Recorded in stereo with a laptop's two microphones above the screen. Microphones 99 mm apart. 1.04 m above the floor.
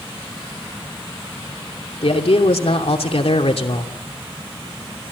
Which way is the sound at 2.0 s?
80° left.